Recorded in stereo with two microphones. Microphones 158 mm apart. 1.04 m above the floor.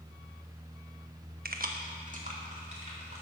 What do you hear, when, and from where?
1.4 s keys jangling: 70° right (ahead or behind), 0.8 m; by 3.2 s 45° right (ahead or behind), 3.5 m